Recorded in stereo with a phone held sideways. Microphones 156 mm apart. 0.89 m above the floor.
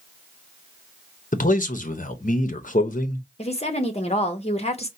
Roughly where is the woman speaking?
Left.